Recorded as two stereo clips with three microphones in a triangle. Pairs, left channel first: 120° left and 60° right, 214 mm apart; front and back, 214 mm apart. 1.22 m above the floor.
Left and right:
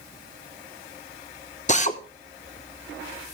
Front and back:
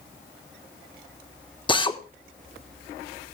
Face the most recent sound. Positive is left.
turn(degrees=65)